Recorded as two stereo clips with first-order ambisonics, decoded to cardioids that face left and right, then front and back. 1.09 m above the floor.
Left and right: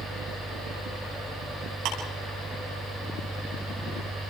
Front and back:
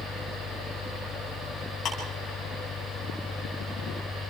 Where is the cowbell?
I don't hear a cowbell.